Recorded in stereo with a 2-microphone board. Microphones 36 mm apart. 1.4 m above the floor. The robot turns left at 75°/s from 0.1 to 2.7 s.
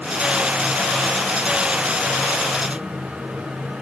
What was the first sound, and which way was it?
Only background noise.